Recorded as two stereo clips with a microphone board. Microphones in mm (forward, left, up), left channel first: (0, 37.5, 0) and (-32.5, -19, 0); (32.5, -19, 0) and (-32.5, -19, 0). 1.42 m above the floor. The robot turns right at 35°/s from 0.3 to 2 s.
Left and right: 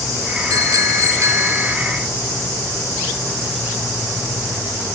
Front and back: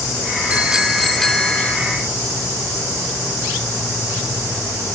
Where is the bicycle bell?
110° right; by 1.8 s 65° right.